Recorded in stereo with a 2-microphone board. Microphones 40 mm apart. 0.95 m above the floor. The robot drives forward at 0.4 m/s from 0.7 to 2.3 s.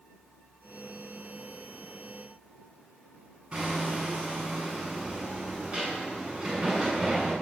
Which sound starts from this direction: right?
Hammering, at 3.5 s.